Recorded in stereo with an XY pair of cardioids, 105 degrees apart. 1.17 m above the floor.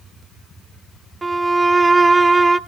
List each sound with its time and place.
1.2 s a violin: 25° right, 0.6 m